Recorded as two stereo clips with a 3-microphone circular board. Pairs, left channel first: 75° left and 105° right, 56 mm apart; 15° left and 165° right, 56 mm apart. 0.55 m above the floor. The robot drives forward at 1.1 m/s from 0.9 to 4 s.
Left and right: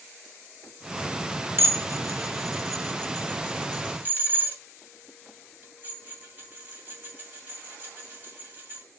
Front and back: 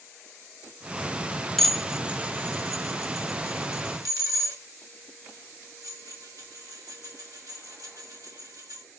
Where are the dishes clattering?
65° right, 1.1 m; by 8.8 s 160° right, 2.5 m.